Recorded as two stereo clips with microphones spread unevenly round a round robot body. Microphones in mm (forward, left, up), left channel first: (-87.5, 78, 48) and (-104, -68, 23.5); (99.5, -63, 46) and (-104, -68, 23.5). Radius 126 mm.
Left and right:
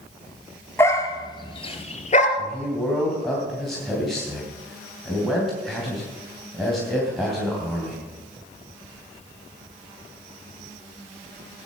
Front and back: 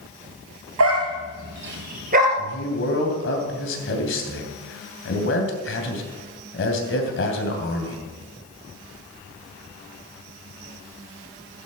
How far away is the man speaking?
About 3 m.